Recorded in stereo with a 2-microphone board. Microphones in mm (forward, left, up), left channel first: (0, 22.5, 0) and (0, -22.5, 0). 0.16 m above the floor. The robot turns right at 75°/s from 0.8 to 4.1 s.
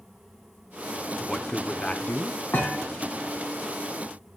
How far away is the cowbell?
I don't hear a cowbell.